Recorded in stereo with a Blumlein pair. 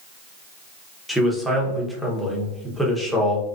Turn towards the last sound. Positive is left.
turn(degrees=0)